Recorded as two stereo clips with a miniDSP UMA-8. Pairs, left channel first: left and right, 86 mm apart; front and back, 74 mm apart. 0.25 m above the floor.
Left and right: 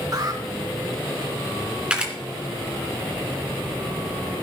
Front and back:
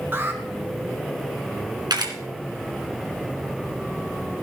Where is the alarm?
125° right, 2.5 m.